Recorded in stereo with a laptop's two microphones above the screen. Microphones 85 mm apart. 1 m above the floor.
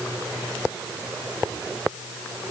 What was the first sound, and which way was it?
Only background noise.